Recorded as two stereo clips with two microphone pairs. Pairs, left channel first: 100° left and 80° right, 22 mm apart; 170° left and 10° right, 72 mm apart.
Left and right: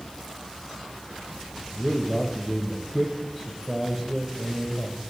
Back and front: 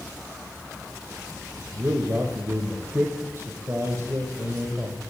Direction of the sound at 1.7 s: 20° left.